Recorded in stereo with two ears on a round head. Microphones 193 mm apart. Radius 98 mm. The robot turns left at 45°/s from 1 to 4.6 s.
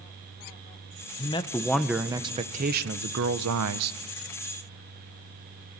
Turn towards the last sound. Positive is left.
turn(degrees=-125)